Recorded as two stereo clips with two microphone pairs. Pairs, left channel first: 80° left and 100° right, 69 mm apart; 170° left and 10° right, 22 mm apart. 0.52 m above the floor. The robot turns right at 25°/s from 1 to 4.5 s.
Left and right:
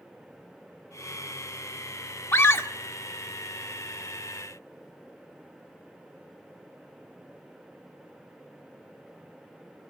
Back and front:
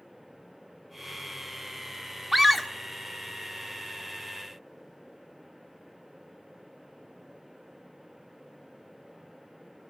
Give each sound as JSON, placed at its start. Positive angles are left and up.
{"t": 2.3, "sound": "a scream", "azimuth_deg": 80, "distance_m": 1.6}